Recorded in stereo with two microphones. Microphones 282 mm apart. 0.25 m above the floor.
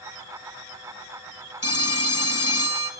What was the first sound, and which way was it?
A phone ringing, 60° left (ahead or behind).